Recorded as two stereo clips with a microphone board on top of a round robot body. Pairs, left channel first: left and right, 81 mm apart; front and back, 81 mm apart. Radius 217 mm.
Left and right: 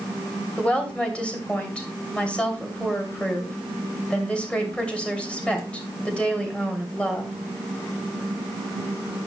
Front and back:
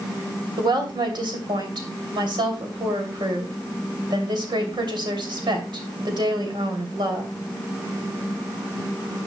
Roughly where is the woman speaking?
Behind.